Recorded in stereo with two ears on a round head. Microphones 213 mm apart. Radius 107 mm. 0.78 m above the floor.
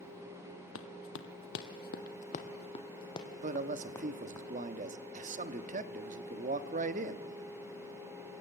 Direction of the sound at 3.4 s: 35° right (ahead or behind).